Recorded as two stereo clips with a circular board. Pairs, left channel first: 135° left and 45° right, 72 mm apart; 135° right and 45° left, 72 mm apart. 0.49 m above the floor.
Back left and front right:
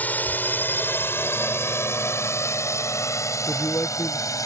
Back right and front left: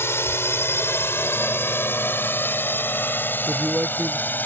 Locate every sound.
0.0 s a drone: 170° right; by 4.5 s 165° left
3.5 s a man speaking: 100° left